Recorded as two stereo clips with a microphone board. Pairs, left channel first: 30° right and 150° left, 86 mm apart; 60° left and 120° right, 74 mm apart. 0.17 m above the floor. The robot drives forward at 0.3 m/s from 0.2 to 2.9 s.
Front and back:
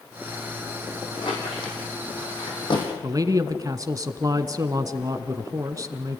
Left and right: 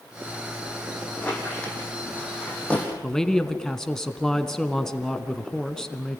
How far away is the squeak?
About 5 m.